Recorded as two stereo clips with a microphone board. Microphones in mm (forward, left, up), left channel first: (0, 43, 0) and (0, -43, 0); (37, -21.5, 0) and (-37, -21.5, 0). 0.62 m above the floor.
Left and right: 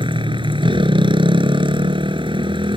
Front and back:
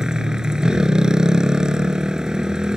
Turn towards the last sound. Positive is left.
turn(degrees=-100)